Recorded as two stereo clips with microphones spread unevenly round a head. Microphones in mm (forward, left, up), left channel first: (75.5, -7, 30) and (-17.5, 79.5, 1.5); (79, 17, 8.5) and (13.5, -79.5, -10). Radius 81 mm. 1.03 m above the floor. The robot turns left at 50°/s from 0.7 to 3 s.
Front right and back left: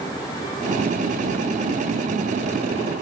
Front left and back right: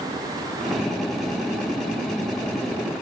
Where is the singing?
I don't hear singing.